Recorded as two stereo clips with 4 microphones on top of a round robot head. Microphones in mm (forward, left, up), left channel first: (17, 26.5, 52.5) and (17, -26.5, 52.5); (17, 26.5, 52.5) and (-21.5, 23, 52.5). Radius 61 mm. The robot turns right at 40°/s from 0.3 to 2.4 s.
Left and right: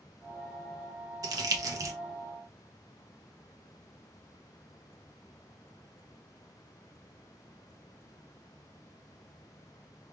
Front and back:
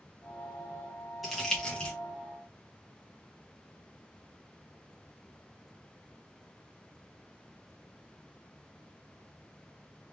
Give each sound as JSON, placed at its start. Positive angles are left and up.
{"t": 1.2, "sound": "crumpling", "azimuth_deg": -85, "distance_m": 0.6}